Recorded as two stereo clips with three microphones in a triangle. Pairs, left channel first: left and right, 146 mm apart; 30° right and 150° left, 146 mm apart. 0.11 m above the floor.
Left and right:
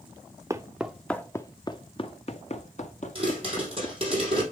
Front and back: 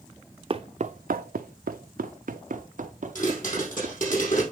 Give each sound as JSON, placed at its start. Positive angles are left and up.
{"t": 0.5, "sound": "footsteps", "azimuth_deg": -160, "distance_m": 0.6}
{"t": 3.1, "sound": "a pop", "azimuth_deg": -45, "distance_m": 4.5}